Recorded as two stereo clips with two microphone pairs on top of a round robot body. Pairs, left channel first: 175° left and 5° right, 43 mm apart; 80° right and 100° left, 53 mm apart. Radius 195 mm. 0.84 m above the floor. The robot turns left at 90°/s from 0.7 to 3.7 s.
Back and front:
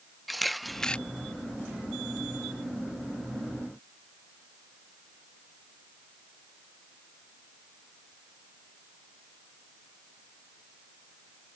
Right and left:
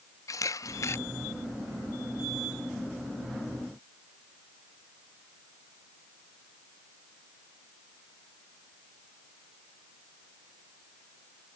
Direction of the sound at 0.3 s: 95° right.